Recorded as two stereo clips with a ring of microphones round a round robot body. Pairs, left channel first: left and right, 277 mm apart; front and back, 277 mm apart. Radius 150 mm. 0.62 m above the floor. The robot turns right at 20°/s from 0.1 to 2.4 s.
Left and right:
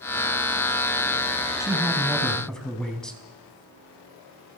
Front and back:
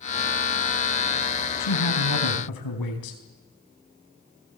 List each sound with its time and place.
1.6 s a man speaking: 15° right, 4 m; by 3.2 s straight ahead, 4 m